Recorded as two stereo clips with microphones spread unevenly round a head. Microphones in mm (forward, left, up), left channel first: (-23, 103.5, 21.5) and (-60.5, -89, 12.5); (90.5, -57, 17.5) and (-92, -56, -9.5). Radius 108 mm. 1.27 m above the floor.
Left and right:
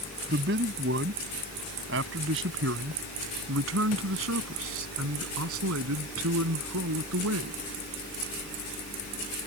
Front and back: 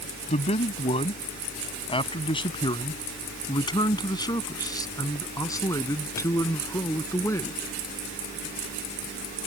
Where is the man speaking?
55° right; by 7.6 s 75° right.